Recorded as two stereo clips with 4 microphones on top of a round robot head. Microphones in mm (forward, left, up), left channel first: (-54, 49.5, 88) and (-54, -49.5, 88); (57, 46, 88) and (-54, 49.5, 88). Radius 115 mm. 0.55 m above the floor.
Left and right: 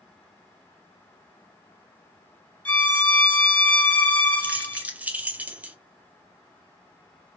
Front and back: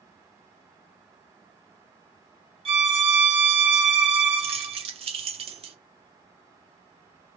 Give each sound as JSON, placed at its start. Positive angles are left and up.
{"t": 2.6, "sound": "a violin", "azimuth_deg": 165, "distance_m": 1.6}
{"t": 4.4, "sound": "keys jangling", "azimuth_deg": -165, "distance_m": 0.8}